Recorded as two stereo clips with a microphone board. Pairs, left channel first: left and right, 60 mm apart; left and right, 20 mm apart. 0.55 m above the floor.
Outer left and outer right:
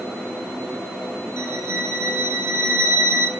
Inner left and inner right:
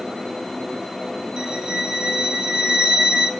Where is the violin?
50° right (ahead or behind), 3 m.